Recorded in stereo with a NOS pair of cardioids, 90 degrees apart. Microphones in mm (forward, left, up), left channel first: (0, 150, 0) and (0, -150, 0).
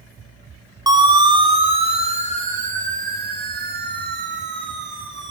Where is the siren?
15° right, 3.5 m; by 5.3 s 40° right, 4.5 m.